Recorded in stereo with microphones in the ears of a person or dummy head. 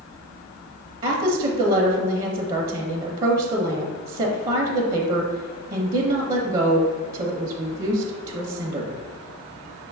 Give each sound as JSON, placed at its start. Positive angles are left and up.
{"t": 1.0, "sound": "a woman speaking", "side_deg": -35, "distance_m": 0.6}